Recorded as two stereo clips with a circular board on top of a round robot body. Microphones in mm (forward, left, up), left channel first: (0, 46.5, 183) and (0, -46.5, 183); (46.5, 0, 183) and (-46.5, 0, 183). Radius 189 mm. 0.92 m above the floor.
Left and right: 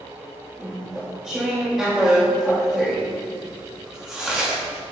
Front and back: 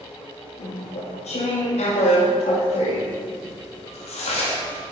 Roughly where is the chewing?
Ahead.